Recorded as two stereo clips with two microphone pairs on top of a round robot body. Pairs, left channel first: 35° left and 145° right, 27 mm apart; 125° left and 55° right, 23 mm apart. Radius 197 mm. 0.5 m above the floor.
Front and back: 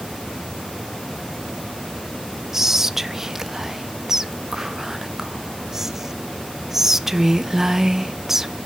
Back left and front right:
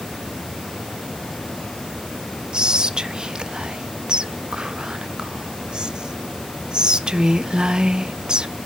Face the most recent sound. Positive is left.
turn(degrees=-70)